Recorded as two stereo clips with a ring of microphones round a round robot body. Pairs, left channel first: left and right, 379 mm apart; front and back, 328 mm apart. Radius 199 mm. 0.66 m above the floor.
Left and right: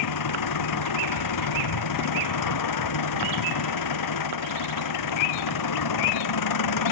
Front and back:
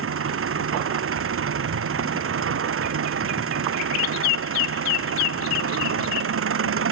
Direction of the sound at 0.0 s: 130° left.